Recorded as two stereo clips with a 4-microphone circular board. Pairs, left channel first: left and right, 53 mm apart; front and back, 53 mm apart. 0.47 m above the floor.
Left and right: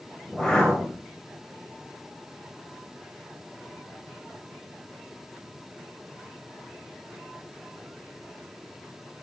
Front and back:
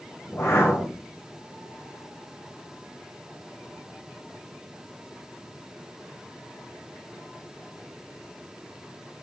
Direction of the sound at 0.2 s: 15° left.